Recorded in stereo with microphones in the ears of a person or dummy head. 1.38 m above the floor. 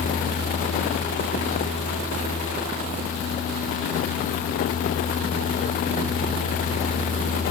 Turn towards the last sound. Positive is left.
No sound to turn to.